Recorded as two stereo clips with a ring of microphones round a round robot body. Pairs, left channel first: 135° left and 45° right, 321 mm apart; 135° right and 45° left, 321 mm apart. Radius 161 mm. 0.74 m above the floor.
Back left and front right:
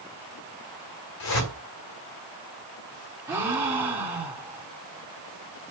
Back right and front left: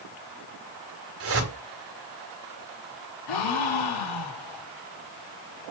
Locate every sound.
1.2 s a whoosh: 95° left, 2.5 m
3.3 s a gasp: 130° right, 2.0 m